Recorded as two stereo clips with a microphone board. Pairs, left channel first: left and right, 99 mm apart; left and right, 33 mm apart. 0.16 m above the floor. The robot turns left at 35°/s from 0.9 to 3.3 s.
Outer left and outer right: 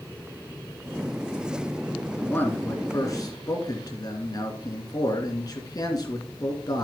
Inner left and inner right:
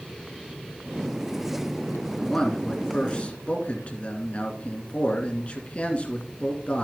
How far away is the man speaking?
About 2.5 m.